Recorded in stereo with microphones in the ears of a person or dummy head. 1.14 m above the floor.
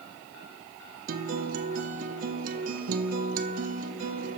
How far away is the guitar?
About 0.6 m.